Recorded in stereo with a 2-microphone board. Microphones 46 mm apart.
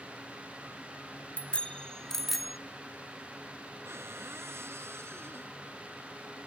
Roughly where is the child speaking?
I don't hear a child speaking.